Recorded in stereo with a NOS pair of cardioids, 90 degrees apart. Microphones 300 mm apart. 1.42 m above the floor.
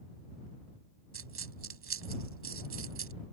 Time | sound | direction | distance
1.1 | a dropped coin | 45° right | ?